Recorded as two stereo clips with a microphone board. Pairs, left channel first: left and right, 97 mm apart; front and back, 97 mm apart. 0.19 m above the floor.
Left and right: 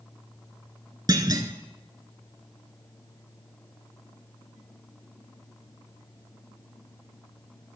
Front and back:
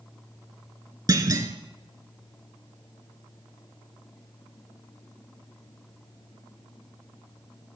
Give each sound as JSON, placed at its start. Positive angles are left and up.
{"t": 1.1, "sound": "a clunk", "azimuth_deg": -135, "distance_m": 0.8}